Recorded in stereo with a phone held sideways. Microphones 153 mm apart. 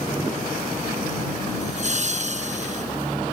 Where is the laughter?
50° right (ahead or behind).